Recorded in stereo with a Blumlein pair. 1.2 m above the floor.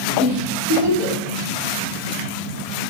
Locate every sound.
0.2 s a giggle: 30° right, 1.3 m